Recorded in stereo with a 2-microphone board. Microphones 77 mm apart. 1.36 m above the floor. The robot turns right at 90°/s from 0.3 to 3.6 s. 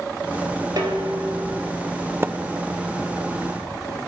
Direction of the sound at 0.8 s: 120° right.